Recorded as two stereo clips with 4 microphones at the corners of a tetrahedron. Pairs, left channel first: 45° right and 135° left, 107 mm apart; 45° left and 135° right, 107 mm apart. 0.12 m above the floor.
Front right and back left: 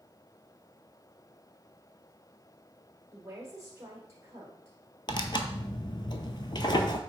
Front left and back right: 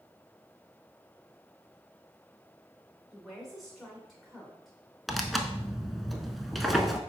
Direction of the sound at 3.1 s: 135° left.